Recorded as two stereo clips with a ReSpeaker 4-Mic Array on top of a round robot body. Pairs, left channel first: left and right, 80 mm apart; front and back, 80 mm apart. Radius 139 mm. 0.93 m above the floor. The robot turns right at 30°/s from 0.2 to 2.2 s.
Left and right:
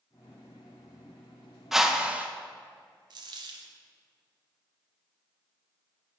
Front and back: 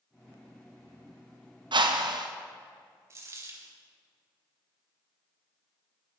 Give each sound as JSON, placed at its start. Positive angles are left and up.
{"t": 1.7, "sound": "a whoosh", "azimuth_deg": -175, "distance_m": 1.2}
{"t": 3.1, "sound": "a dropped coin", "azimuth_deg": -125, "distance_m": 0.8}